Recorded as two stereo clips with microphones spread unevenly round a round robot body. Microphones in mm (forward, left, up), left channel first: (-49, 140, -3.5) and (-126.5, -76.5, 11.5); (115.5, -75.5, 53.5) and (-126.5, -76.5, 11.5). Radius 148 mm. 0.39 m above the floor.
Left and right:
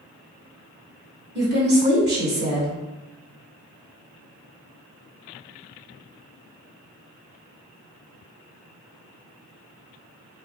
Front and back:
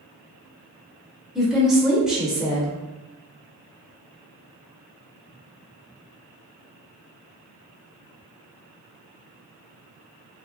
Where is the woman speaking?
105° right, 1.2 m.